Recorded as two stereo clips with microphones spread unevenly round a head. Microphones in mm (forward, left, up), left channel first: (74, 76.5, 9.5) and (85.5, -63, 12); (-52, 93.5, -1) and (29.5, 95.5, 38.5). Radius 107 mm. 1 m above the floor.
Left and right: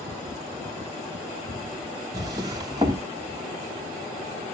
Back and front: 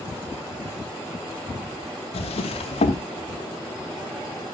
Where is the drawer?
155° right, 0.7 m.